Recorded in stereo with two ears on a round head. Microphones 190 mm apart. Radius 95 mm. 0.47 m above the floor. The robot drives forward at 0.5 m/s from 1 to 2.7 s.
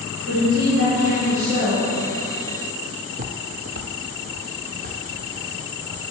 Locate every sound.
0.3 s a woman speaking: 65° right (ahead or behind), 2.5 m
3.1 s footsteps: 30° right (ahead or behind), 0.5 m; by 6.1 s 35° right (ahead or behind), 4 m